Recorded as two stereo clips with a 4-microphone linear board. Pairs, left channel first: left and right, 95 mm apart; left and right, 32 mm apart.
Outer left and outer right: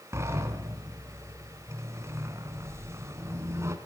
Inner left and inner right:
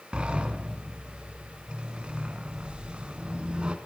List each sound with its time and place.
0.1 s a sliding door: 30° right (ahead or behind), 2 m